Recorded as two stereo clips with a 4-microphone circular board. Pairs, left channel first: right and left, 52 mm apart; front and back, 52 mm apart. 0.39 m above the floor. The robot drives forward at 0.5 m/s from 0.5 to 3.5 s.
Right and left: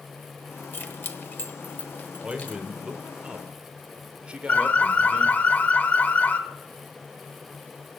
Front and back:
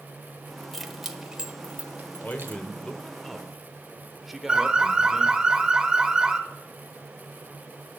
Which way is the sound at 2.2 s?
30° left.